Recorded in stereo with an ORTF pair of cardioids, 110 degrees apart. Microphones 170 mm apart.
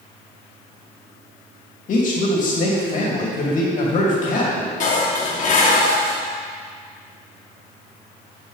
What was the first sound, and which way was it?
A man speaking, 50° left.